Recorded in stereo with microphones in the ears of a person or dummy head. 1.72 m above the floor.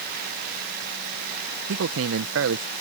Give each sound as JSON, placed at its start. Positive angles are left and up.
{"t": 1.7, "sound": "a man speaking", "side_deg": -75}